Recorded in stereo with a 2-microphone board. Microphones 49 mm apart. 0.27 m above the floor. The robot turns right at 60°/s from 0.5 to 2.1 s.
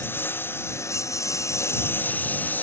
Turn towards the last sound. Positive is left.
turn(degrees=145)